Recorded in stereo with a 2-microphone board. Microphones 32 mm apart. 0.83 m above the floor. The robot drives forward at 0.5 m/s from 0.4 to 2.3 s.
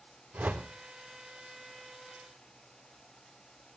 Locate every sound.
0.3 s a whoosh: 75° right (ahead or behind), 2.5 m